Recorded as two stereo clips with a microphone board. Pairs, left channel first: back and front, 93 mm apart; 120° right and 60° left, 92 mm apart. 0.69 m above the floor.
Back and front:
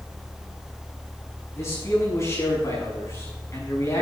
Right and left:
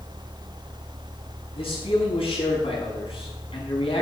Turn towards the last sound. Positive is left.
turn(degrees=-120)